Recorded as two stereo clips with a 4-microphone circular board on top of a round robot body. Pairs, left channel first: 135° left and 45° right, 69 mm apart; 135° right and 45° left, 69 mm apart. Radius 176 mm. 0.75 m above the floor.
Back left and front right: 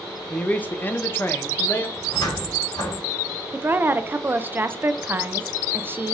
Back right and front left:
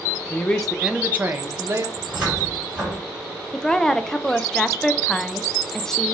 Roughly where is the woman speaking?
Ahead right.